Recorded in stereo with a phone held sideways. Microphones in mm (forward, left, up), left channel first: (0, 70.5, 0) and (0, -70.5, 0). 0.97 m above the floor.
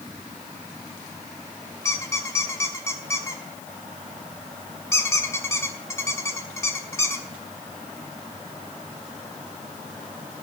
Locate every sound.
1.9 s a squeak: 20° left (ahead or behind), 1.1 m